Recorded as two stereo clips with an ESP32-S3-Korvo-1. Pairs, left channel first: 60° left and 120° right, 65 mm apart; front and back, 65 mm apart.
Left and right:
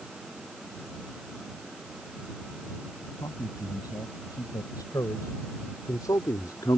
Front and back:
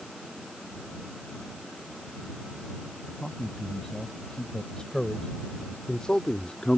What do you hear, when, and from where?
3.2 s a man speaking: 80° left; by 6.8 s 75° left